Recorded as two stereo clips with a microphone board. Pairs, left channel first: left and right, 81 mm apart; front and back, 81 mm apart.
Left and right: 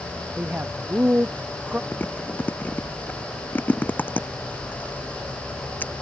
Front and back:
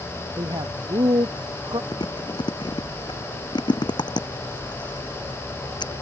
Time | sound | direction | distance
0.4 | a man speaking | 160° right | ?
1.9 | chewing | 25° left | ?